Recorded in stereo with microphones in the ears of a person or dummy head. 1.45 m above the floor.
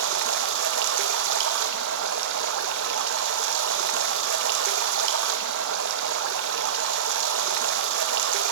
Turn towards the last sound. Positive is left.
turn(degrees=-60)  # may be behind; listen again after turning